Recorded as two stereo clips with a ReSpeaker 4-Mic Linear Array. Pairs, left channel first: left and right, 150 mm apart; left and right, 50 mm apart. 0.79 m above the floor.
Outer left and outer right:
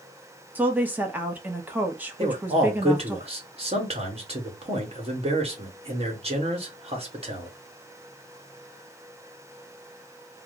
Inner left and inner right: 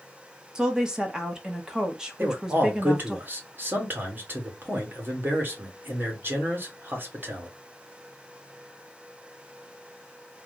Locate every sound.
0.6 s a woman speaking: 10° right (ahead or behind), 0.8 m
2.2 s a man speaking: 40° right (ahead or behind), 1.4 m